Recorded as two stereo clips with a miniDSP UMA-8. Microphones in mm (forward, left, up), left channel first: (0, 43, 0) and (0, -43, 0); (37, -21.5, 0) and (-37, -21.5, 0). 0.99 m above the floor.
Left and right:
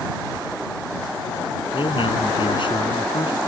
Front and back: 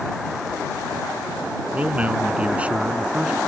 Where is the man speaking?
110° left; by 3.4 s 105° left.